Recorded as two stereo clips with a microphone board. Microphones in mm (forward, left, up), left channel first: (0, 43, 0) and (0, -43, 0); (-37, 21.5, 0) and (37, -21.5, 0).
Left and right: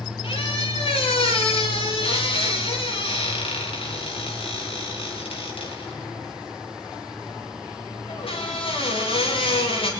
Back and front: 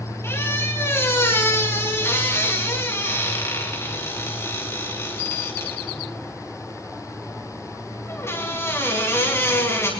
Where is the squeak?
90° left, 5 m.